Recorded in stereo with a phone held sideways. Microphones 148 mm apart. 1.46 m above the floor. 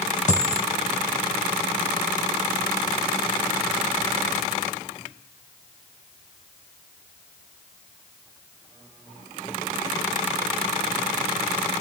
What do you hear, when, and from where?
0.3 s a dropped coin: 50° left (ahead or behind), 2.5 m